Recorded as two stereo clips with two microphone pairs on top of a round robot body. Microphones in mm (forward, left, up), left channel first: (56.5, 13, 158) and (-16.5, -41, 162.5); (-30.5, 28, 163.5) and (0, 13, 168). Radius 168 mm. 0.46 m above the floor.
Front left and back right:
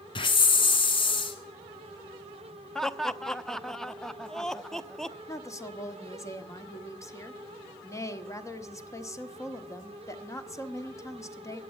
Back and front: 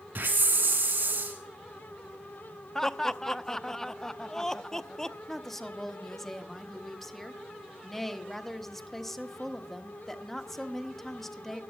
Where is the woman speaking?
80° left, 1.5 m.